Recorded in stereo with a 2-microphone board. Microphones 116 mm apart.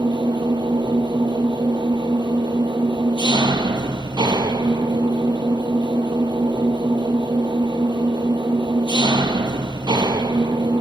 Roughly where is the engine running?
Right.